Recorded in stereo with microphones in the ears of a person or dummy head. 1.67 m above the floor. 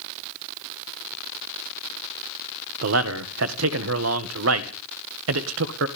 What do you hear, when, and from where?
2.8 s a man speaking: 80° right, 1.7 m